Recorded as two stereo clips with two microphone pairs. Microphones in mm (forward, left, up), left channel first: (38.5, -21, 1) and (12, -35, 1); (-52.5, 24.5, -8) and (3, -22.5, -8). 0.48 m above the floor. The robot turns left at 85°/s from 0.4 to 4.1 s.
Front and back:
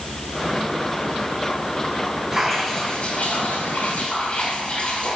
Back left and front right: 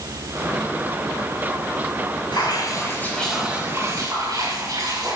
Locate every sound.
2.3 s dripping: 140° left, 6 m; by 5.2 s 15° right, 6 m